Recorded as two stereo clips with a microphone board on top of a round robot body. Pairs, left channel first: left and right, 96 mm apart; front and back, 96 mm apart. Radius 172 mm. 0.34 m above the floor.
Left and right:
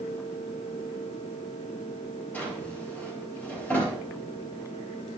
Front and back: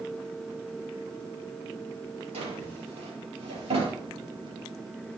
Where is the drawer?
165° left, 4 m.